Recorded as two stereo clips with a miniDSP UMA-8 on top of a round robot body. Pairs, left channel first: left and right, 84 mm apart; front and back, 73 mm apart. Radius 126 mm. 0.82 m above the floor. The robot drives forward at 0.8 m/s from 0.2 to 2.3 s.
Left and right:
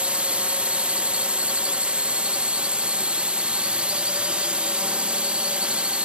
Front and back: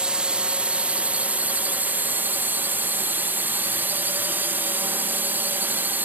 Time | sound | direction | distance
0.0 | a drone | 135° right | ?